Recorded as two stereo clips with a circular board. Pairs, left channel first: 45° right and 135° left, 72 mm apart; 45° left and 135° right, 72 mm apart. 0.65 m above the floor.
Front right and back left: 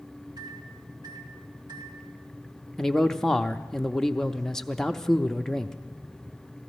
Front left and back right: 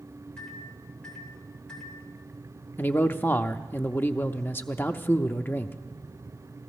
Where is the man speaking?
30° left, 0.6 m.